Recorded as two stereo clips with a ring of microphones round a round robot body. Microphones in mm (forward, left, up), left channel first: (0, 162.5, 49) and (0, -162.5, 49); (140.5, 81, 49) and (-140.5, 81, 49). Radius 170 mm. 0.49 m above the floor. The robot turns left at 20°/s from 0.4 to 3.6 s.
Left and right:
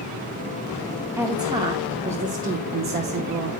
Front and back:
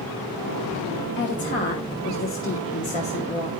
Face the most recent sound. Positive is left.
turn(degrees=-65)